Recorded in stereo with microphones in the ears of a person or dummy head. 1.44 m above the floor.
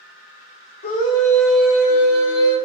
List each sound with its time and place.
0.8 s a scream: 45° left (ahead or behind), 1.0 m; by 2.5 s 35° right (ahead or behind), 1.7 m